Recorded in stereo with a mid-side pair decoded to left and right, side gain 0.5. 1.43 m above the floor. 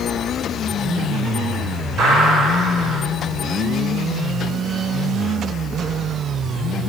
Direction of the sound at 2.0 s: 60° right.